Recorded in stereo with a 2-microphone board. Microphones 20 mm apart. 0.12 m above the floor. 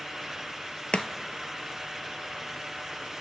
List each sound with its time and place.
0.9 s chopping: 65° left (ahead or behind), 0.6 m